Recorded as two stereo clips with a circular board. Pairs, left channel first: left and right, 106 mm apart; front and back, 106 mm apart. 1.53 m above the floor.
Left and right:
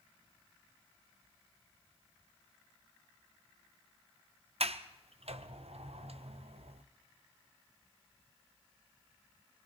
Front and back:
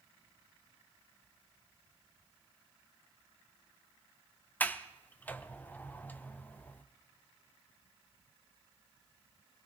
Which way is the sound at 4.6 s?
75° right.